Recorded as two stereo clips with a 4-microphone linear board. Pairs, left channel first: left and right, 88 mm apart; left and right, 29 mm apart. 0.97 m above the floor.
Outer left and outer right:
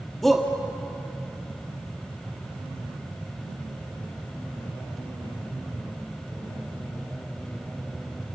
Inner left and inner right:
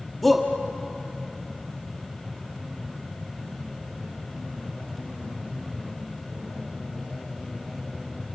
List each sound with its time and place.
0.2 s a shout: centre (ahead or behind), 1.7 m